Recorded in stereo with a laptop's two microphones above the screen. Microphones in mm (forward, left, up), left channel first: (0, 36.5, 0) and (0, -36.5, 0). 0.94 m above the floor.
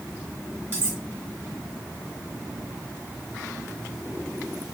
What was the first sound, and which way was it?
Cutlery clinking, 30° right (ahead or behind).